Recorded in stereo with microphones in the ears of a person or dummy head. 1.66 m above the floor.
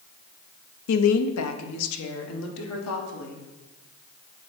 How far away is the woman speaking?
About 0.5 m.